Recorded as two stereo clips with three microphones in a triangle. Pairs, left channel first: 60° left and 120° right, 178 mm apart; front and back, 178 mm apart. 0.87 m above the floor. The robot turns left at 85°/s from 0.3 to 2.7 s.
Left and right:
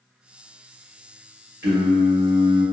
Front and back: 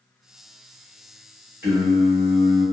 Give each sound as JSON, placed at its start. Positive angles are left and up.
{"t": 1.6, "sound": "singing", "azimuth_deg": -100, "distance_m": 1.2}